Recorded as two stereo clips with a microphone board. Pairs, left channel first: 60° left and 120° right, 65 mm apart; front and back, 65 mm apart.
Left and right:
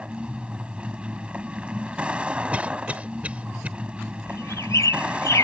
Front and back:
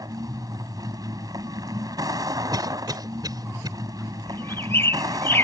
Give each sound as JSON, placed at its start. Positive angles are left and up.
{"t": 0.0, "sound": "a vehicle", "azimuth_deg": 165}
{"t": 2.5, "sound": "a cough", "azimuth_deg": 170}
{"t": 4.3, "sound": "a bird", "azimuth_deg": 40}